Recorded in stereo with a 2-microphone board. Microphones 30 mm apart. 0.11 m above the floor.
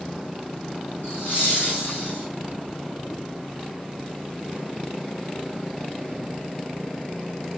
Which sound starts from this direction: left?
Laughter, at 1.0 s.